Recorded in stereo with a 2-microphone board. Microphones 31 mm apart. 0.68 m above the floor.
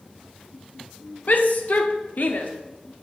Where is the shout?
60° left (ahead or behind), 1.4 m.